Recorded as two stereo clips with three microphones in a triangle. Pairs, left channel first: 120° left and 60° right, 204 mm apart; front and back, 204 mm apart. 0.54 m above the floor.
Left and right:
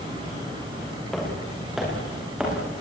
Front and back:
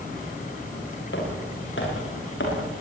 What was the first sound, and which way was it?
Footsteps, 30° left.